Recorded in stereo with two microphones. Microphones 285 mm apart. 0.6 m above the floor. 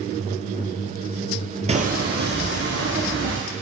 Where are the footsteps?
25° right (ahead or behind), 0.8 m; by 3.4 s 40° right (ahead or behind), 3 m.